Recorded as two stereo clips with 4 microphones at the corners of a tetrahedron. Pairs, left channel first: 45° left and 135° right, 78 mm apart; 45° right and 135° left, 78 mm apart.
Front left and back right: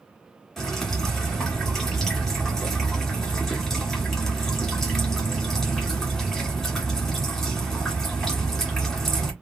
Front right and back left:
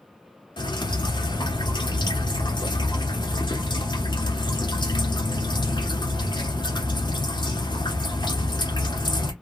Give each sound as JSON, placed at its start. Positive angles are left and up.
{"t": 0.6, "sound": "dripping", "azimuth_deg": -40, "distance_m": 1.4}